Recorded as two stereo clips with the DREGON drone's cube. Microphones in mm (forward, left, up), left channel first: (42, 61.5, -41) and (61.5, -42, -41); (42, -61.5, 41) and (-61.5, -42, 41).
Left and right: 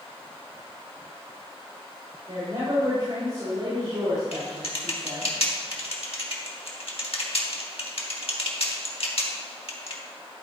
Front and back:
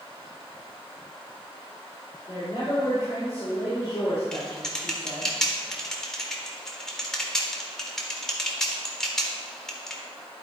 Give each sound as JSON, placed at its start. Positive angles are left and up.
{"t": 2.3, "sound": "a woman speaking", "azimuth_deg": -65, "distance_m": 3.5}
{"t": 4.3, "sound": "typing on a keyboard", "azimuth_deg": 75, "distance_m": 1.2}